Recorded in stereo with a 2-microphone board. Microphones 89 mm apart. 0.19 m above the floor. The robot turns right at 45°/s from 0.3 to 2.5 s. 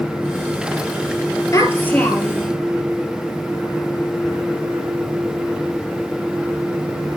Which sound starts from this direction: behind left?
A child speaking, at 1.5 s.